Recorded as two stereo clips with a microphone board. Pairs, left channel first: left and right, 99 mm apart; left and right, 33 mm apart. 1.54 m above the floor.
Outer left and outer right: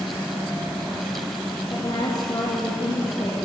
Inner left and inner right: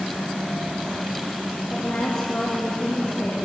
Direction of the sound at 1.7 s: 45° left (ahead or behind).